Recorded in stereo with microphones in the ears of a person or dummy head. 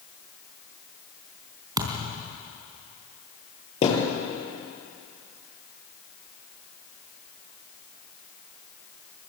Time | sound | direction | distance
1.8 | a thud | 10° right (ahead or behind) | 3.5 m
3.8 | a thud | 45° left (ahead or behind) | 8 m